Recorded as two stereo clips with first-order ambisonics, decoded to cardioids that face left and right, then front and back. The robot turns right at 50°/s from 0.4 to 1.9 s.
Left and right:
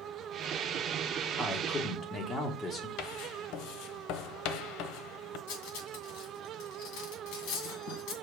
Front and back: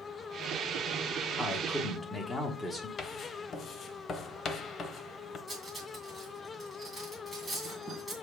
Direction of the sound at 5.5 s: 90° left.